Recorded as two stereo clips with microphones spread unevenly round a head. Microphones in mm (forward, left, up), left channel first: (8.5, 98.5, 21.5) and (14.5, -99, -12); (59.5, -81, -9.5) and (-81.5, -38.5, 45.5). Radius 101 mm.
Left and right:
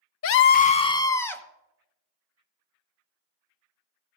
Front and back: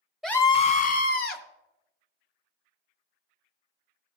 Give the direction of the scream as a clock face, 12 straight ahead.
10 o'clock.